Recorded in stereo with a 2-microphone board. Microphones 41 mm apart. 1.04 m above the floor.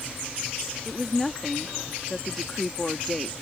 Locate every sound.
0.8 s a woman speaking: 5° left (ahead or behind)